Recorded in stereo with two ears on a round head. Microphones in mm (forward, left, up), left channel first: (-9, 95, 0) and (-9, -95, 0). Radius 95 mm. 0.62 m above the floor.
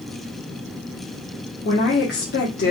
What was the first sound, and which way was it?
A woman speaking, 55° left (ahead or behind).